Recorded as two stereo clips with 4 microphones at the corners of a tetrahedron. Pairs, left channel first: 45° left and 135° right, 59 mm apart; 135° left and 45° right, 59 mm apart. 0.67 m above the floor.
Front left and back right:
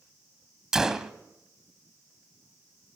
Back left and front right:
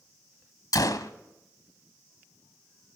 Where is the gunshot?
145° left, 1.1 m.